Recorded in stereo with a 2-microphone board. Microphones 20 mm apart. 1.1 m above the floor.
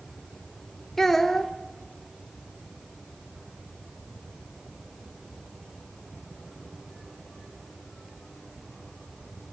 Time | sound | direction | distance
1.0 | a child speaking | 15° left (ahead or behind) | 0.9 m